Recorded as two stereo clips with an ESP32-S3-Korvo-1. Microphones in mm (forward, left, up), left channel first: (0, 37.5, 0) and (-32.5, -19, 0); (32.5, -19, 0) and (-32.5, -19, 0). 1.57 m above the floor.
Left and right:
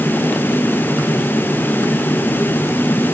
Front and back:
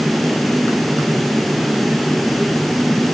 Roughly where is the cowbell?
No cowbell in this recording.